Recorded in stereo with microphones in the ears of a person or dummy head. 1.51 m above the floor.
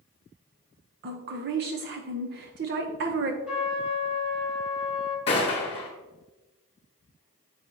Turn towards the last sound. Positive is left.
turn(degrees=30)  # may be behind; listen again after turning